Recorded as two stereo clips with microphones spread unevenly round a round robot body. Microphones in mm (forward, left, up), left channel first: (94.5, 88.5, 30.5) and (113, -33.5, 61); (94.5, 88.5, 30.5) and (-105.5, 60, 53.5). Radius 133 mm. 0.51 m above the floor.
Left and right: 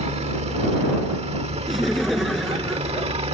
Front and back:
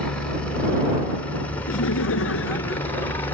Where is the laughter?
10° left.